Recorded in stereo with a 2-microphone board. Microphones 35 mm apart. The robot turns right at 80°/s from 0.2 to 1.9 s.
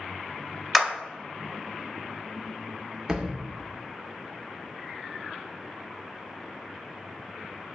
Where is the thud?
20° right (ahead or behind), 0.6 m.